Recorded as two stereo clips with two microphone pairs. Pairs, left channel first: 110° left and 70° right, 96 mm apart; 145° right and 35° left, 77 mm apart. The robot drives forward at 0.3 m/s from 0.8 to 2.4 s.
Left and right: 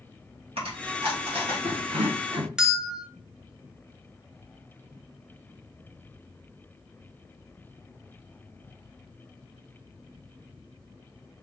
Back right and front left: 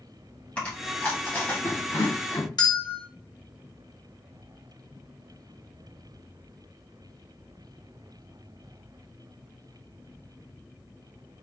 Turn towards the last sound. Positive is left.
turn(degrees=-155)